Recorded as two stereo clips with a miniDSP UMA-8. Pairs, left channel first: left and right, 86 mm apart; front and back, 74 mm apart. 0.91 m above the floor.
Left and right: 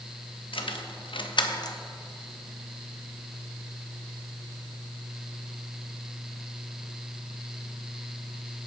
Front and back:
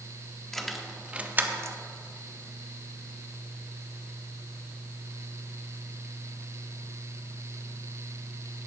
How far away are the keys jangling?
About 0.9 m.